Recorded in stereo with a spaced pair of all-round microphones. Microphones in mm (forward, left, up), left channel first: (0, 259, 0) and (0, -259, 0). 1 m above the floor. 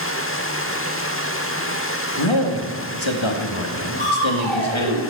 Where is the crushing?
75° right (ahead or behind), 5 m.